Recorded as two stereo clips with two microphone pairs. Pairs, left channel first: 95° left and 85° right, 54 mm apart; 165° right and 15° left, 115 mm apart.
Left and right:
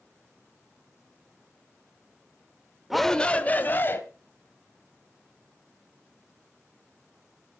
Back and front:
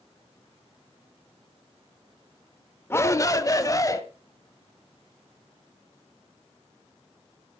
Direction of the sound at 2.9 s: 160° right.